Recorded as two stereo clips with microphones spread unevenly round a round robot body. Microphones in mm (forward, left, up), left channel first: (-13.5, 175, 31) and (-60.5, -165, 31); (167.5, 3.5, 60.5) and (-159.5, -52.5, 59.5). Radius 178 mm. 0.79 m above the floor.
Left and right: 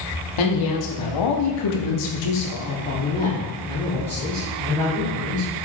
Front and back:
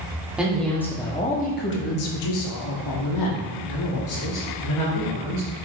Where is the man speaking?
105° left, 1.7 m; by 5.5 s 15° right, 3 m.